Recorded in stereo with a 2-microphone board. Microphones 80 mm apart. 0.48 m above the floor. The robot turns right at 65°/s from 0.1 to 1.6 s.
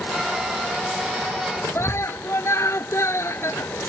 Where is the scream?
35° left (ahead or behind).